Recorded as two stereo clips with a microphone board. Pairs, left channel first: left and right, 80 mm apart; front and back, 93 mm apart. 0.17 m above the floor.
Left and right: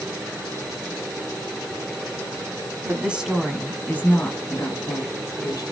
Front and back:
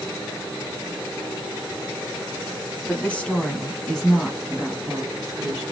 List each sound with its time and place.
2.8 s a woman speaking: 55° right, 1.2 m; by 5.6 s 95° left, 2 m